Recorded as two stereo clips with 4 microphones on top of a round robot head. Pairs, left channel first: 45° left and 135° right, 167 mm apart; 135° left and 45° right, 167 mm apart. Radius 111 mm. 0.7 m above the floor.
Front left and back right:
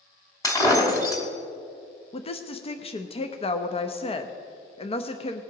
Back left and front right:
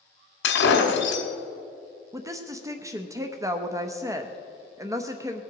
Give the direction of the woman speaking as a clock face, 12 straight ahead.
11 o'clock.